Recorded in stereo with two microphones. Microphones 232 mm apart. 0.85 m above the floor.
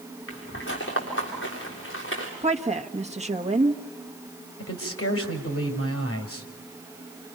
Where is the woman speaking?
30° right (ahead or behind), 1.2 m.